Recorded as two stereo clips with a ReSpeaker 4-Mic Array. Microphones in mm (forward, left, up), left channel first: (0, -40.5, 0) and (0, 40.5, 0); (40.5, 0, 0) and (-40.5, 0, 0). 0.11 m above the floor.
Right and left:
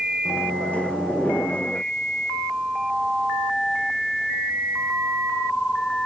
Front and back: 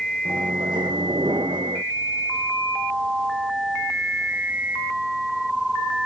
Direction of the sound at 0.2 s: 165° right.